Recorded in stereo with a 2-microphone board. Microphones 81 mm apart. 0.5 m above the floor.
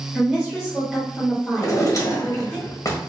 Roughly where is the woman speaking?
Centre.